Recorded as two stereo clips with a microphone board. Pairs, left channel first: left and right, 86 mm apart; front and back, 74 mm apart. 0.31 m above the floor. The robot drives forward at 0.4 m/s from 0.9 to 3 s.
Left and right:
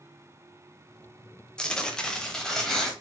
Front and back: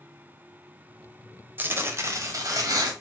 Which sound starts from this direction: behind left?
Tearing paper, at 1.6 s.